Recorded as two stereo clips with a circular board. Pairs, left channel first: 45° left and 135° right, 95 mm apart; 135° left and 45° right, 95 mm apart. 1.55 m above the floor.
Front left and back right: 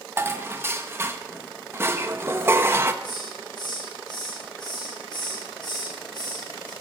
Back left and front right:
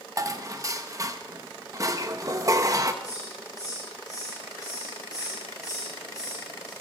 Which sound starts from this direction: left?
A hiss, at 3.0 s.